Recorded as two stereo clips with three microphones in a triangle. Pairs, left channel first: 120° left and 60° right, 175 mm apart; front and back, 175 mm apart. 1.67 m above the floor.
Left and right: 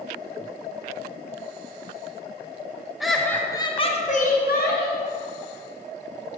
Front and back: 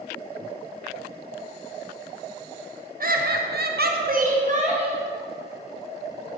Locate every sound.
3.0 s laughter: 150° right, 0.7 m; by 5.0 s 125° left, 1.0 m